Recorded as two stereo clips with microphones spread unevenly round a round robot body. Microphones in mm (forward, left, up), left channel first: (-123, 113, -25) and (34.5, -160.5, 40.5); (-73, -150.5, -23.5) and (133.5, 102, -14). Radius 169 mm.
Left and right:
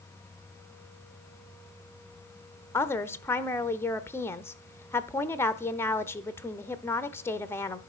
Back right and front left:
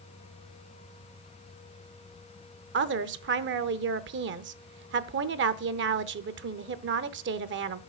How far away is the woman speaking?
About 0.8 m.